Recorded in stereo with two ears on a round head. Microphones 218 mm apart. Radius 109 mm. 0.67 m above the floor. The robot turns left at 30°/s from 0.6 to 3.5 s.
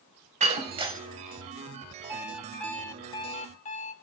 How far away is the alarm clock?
About 1.6 m.